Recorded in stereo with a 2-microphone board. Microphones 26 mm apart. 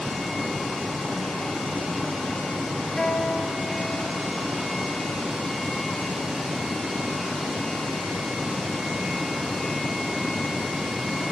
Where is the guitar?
40° left (ahead or behind), 2.5 m.